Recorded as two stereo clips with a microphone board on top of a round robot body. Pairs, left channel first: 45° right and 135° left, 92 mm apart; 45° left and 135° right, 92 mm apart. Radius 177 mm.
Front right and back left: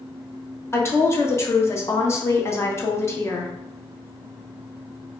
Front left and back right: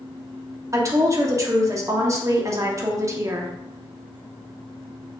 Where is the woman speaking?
95° right, 1.1 m.